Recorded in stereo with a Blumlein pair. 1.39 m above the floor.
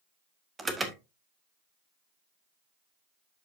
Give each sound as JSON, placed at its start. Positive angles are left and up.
{"t": 0.6, "sound": "an alarm", "azimuth_deg": -15, "distance_m": 1.3}